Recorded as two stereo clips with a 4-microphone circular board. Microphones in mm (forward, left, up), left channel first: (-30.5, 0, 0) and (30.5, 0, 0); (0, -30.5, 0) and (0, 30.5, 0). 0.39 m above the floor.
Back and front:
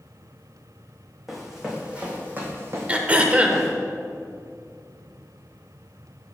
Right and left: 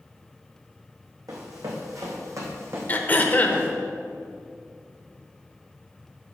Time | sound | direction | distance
1.3 | running footsteps | 90° left | 1.8 m
2.9 | throat clearing | 55° right | 0.6 m